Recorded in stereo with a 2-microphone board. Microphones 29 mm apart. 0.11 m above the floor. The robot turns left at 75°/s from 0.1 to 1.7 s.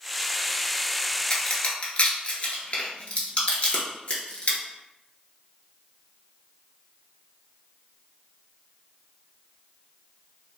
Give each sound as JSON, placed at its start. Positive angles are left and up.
{"t": 1.3, "sound": "a crack", "side_deg": 25, "distance_m": 0.8}